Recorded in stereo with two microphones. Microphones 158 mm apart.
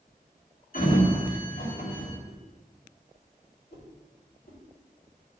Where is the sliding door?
65° left (ahead or behind), 3 m.